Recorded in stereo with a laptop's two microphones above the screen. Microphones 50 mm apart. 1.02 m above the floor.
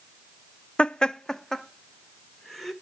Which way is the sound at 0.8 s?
20° left (ahead or behind).